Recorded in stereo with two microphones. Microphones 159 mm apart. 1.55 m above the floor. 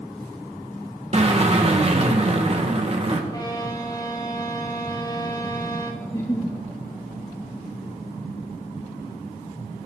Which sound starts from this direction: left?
A violin, at 3.3 s.